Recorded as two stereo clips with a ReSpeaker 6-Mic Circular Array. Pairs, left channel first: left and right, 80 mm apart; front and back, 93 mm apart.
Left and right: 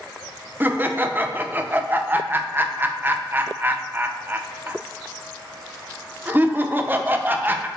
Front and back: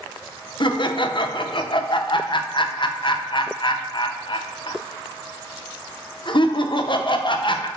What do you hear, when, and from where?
0.6 s laughter: 25° right, 0.7 m